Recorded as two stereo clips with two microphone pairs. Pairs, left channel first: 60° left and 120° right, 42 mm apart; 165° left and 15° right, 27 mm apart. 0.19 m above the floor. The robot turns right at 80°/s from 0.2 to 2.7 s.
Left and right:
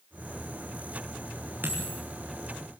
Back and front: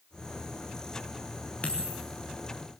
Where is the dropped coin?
160° right, 5.5 m; by 2.0 s 125° right, 5.5 m.